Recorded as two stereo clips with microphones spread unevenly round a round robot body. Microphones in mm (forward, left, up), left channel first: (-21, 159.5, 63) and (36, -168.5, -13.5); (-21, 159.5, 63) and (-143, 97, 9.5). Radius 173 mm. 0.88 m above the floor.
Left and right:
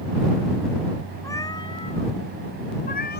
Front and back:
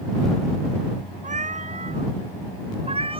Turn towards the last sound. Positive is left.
turn(degrees=160)